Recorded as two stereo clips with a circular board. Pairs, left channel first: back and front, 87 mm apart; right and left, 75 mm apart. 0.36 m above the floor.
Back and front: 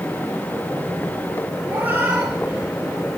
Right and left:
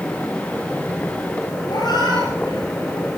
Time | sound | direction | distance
1.7 | a cat meowing | 70° right | 3.5 m